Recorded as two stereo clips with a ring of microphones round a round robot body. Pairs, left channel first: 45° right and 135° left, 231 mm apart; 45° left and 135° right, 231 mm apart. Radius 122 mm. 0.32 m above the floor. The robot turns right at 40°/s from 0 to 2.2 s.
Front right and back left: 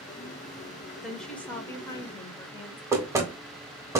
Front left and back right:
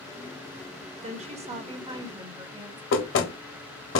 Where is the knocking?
60° left, 1.1 m.